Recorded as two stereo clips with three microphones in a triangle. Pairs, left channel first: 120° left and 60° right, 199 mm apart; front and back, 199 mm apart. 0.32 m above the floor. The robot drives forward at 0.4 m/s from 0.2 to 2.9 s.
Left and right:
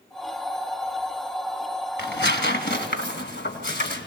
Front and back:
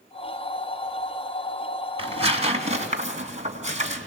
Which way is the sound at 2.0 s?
125° left.